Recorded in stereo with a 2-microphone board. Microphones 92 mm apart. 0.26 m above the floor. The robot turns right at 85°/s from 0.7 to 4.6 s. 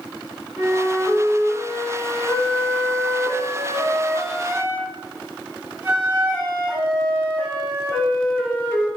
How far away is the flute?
About 1.4 m.